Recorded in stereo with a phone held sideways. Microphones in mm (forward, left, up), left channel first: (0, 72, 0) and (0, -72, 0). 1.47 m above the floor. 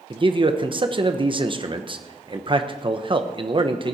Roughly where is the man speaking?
Right.